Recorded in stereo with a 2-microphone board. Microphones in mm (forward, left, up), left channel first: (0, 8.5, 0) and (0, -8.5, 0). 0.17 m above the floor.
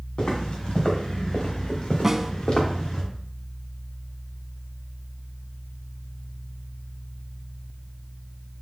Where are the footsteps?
75° left (ahead or behind), 3.5 m; by 3.0 s 80° left, 2.5 m.